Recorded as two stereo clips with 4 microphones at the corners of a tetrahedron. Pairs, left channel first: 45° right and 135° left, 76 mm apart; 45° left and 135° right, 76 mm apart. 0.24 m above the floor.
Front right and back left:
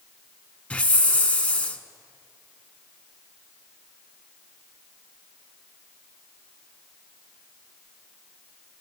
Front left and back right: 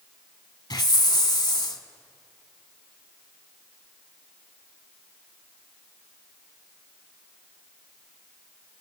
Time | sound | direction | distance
0.7 | a hiss | 25° left | 0.7 m